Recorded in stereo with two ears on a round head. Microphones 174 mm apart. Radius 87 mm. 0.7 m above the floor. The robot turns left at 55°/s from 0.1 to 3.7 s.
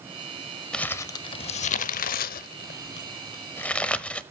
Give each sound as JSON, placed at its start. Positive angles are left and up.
{"t": 0.7, "sound": "crumpling", "side_deg": 5, "distance_m": 0.6}